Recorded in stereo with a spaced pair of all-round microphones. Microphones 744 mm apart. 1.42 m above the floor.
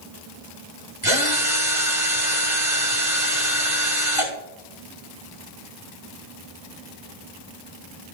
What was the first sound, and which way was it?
A drill, 45° right (ahead or behind).